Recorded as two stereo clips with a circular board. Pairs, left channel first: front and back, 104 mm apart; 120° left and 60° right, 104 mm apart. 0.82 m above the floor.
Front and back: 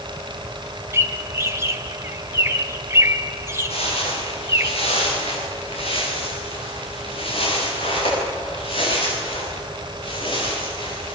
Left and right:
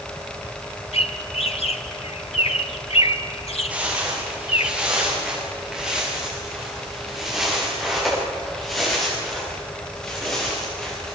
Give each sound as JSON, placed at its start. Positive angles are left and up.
{"t": 0.9, "sound": "a bird", "azimuth_deg": 115, "distance_m": 1.1}
{"t": 3.7, "sound": "footsteps", "azimuth_deg": 20, "distance_m": 9.0}